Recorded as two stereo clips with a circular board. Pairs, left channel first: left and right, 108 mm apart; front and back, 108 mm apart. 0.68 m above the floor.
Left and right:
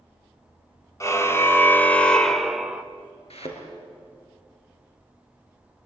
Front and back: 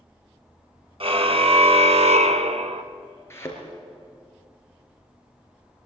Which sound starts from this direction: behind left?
A car horn, at 1.0 s.